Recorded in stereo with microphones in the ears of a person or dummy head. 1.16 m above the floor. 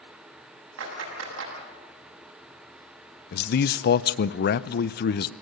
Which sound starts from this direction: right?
A clap, at 0.8 s.